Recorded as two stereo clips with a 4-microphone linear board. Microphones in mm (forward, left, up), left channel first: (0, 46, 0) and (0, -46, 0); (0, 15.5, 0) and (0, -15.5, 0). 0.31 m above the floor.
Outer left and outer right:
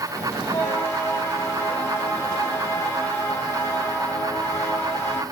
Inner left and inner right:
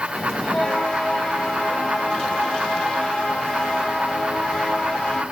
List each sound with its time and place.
0.1 s a bell: 30° left (ahead or behind), 1.3 m